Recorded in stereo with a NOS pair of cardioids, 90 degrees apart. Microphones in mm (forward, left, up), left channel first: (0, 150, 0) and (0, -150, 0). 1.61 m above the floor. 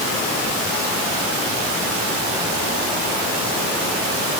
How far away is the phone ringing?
No phone ringing in this recording.